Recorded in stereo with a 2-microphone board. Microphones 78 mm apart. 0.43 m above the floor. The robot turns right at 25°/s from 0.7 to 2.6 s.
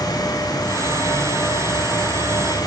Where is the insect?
70° left, 3 m; by 2.7 s 120° left, 3 m.